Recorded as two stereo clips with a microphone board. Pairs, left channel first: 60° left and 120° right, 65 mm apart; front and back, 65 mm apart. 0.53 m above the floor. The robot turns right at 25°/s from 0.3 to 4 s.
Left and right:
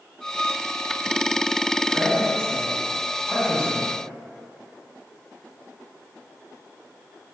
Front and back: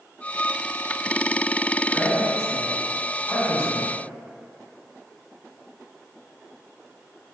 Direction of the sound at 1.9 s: 90° right.